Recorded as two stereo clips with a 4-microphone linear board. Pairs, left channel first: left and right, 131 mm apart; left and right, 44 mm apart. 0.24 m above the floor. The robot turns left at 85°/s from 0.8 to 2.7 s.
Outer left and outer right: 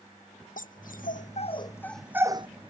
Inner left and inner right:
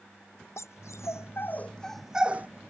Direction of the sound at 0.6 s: 80° left.